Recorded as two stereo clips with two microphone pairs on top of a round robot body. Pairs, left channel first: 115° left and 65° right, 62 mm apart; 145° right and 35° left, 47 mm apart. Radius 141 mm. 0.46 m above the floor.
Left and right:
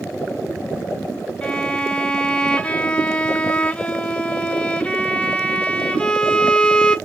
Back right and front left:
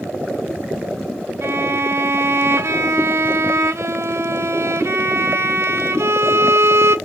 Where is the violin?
45° left, 0.5 m.